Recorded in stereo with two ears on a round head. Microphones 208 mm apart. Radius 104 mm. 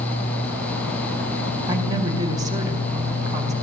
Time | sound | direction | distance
1.7 | a woman speaking | 15° right (ahead or behind) | 4 m